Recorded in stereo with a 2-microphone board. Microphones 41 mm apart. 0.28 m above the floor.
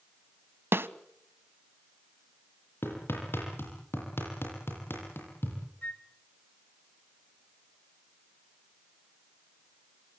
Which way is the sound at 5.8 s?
35° left (ahead or behind).